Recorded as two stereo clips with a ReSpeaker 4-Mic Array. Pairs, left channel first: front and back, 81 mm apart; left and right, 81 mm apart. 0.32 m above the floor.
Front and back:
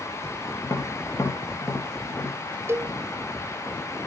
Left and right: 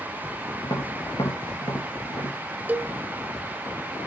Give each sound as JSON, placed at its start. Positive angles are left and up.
{"t": 0.6, "sound": "tapping", "azimuth_deg": 55, "distance_m": 5.5}
{"t": 2.7, "sound": "a cowbell", "azimuth_deg": -150, "distance_m": 0.7}